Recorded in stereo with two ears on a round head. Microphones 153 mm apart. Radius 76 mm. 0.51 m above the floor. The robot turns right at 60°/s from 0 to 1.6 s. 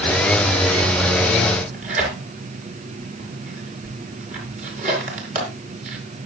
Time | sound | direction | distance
1.5 | tearing paper | 50° right (ahead or behind) | 5 m